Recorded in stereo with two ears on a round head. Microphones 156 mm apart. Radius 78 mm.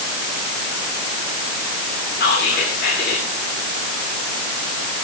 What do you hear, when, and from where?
2.2 s whispering: 60° left (ahead or behind), 3 m